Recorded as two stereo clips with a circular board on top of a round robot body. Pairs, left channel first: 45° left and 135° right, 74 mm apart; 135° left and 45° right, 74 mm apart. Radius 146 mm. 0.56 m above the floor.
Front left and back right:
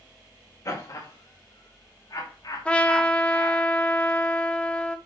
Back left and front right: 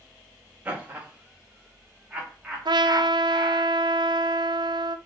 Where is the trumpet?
30° right, 0.7 m.